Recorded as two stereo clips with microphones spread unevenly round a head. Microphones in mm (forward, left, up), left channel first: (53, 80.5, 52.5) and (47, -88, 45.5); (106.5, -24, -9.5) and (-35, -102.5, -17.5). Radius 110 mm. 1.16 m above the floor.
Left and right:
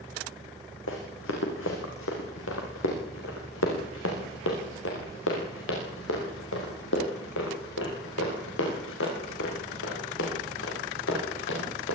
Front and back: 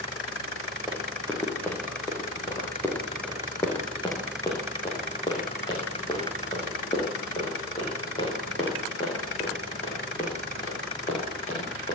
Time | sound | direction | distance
0.9 | running footsteps | 115° left | 5.5 m